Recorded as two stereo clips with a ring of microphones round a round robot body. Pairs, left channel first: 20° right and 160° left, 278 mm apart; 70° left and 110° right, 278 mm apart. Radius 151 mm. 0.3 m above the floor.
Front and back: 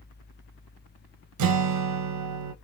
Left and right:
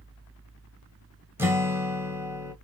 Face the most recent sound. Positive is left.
turn(degrees=165)